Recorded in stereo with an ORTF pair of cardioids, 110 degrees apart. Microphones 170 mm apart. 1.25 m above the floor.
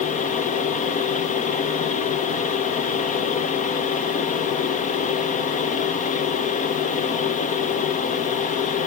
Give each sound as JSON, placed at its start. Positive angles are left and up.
{"t": 0.0, "sound": "a fan", "azimuth_deg": 50, "distance_m": 1.2}